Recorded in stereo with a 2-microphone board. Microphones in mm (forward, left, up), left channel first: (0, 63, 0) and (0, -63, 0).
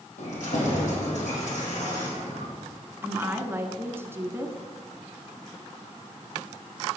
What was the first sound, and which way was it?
Keys jangling, 75° left (ahead or behind).